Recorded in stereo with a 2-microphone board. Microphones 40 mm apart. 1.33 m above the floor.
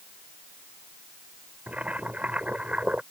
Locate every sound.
1.7 s boiling: 35° right (ahead or behind)